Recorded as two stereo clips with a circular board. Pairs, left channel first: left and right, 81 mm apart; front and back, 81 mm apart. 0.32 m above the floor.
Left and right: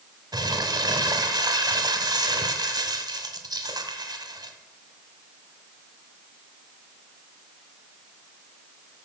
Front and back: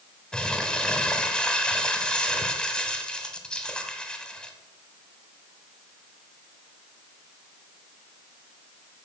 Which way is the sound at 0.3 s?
75° right.